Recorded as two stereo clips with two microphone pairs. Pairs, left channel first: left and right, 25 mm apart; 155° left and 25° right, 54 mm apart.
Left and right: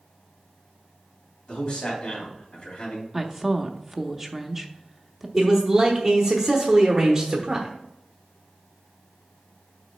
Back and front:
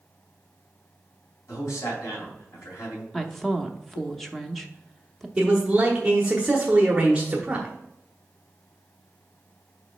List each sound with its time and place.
1.5 s a man speaking: 135° left, 3 m
3.1 s a woman speaking: 120° right, 0.6 m
5.4 s a man speaking: 70° right, 0.9 m